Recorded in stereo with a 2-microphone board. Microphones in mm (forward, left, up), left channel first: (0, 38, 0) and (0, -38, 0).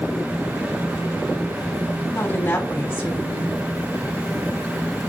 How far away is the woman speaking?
About 3.5 m.